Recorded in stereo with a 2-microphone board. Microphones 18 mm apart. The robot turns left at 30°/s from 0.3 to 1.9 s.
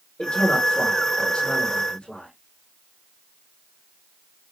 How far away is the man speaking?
About 5 m.